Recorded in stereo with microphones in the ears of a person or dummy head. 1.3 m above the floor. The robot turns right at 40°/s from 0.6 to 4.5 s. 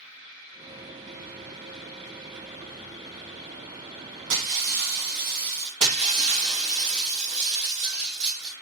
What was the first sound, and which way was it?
Breaking glass, 70° right (ahead or behind).